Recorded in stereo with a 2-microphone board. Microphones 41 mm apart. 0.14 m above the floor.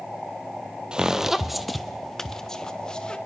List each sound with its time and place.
0.9 s footsteps: 20° right (ahead or behind), 1.1 m; by 3.2 s 20° left (ahead or behind), 2 m